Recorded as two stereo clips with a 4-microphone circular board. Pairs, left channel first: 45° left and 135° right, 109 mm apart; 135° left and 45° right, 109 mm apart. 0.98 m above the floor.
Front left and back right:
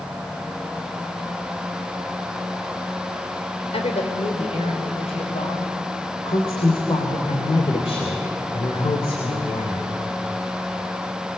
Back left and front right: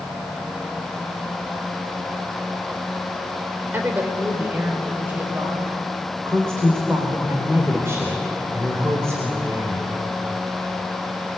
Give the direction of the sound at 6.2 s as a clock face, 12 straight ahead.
11 o'clock.